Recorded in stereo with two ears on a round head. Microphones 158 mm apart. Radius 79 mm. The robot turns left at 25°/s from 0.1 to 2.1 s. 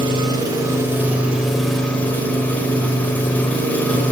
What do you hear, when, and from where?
0.0 s an engine running: 140° right, 1.6 m; by 4.1 s 170° left, 1.6 m